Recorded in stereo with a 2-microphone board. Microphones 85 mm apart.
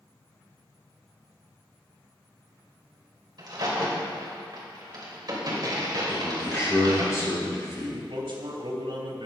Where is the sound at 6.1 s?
35° left (ahead or behind), 4 m.